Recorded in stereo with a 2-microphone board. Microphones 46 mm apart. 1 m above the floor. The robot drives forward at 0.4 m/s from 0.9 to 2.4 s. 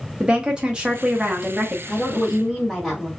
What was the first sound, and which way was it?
A woman speaking, 20° right (ahead or behind).